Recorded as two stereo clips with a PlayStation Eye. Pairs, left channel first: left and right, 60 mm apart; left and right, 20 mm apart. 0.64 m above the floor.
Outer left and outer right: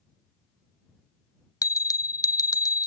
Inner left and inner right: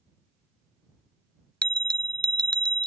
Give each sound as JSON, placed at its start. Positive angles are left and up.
{"t": 1.6, "sound": "a bell", "side_deg": 75}